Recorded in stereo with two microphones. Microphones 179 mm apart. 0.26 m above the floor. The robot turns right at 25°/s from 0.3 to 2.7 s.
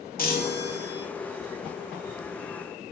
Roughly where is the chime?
Left.